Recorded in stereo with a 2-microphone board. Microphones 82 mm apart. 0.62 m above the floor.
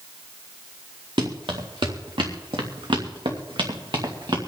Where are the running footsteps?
70° right (ahead or behind), 3 m; by 4.4 s 60° right (ahead or behind), 3 m.